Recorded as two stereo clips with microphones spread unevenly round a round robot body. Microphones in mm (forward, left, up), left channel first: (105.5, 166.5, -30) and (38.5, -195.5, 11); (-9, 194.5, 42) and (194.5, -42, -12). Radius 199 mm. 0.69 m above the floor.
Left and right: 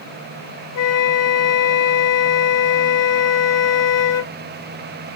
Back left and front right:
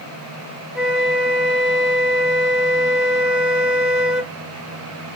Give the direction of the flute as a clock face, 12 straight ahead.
10 o'clock.